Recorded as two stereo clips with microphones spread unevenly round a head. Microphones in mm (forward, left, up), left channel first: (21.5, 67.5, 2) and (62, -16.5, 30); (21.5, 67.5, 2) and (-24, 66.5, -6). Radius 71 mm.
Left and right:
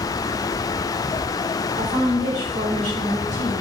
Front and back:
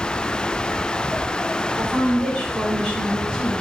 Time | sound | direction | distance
1.8 | a woman speaking | 105° right | 5.5 m